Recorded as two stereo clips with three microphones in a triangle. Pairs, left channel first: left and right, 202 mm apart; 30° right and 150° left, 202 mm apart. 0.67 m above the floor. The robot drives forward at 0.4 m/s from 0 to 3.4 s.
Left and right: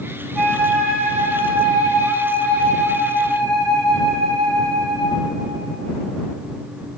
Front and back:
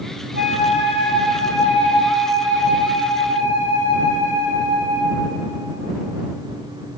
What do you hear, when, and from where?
0.3 s a flute: 175° left, 1.2 m; by 5.2 s straight behind, 2.5 m